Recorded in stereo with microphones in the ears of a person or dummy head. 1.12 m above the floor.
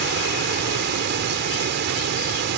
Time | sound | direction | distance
0.0 | running water | 50° right (ahead or behind) | ?